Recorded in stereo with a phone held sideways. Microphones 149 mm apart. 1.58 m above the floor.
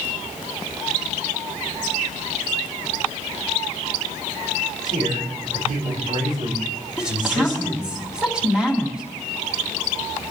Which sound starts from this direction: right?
A man speaking, at 4.8 s.